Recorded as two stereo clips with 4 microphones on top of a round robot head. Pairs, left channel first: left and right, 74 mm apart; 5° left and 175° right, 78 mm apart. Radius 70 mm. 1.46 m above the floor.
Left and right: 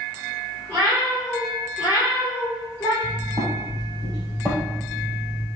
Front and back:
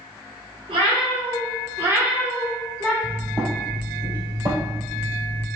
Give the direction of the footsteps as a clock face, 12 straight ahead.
4 o'clock.